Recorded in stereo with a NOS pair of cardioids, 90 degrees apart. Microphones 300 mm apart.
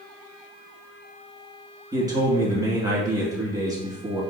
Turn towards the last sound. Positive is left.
turn(degrees=-15)